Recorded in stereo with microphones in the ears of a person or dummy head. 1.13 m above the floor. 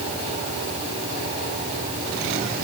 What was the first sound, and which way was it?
Only background noise.